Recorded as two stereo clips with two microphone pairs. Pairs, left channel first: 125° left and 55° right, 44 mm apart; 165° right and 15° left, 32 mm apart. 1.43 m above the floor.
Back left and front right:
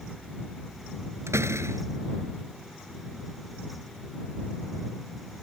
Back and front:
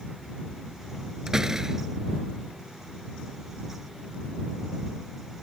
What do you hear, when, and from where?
1.3 s a door slam: 60° right